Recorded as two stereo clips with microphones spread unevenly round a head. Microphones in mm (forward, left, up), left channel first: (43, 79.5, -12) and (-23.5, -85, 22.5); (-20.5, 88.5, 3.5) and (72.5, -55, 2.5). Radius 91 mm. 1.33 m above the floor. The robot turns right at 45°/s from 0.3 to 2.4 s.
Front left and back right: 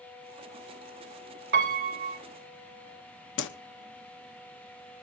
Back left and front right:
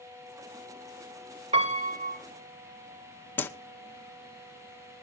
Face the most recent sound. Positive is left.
turn(degrees=45)